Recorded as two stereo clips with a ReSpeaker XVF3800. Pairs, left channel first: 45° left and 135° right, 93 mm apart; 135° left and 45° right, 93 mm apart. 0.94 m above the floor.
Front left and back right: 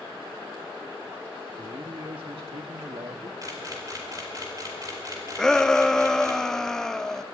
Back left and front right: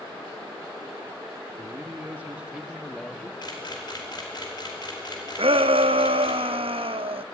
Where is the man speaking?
100° right, 1.6 m; by 3.3 s 150° right, 1.4 m.